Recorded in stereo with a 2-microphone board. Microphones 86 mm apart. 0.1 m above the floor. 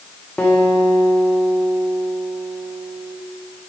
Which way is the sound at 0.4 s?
15° left (ahead or behind).